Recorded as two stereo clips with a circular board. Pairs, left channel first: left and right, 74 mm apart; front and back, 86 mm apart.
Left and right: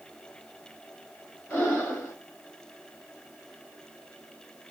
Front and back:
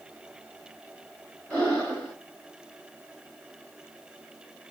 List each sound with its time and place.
1.5 s breathing: 65° left, 1.7 m